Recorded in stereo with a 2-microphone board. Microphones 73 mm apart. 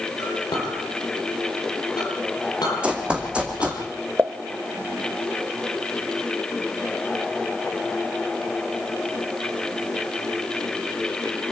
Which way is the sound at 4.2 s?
30° right (ahead or behind).